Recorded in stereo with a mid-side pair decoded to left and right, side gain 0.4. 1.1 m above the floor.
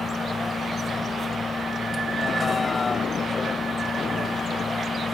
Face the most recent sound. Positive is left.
turn(degrees=30)